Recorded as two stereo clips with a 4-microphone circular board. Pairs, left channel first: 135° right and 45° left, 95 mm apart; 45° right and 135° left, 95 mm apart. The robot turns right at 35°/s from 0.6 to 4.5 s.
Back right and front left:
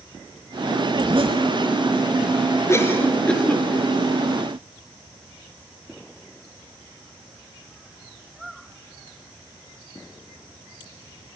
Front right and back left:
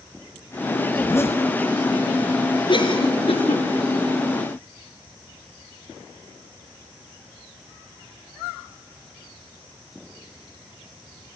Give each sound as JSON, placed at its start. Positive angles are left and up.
{"t": 0.9, "sound": "a zipper", "azimuth_deg": 10, "distance_m": 3.0}
{"t": 2.7, "sound": "a cough", "azimuth_deg": -75, "distance_m": 4.0}